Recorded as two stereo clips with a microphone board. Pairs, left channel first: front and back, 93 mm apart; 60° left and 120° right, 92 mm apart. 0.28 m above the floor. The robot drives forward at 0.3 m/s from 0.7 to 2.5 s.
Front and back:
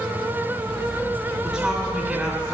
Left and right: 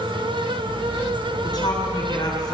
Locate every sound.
1.4 s a woman speaking: 90° left, 3.5 m; by 2.5 s 95° left, 3.5 m